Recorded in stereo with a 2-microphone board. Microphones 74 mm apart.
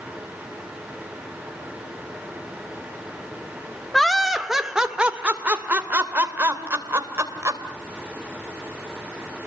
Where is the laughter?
5° left (ahead or behind), 1.8 m; by 7.6 s 40° right (ahead or behind), 3 m.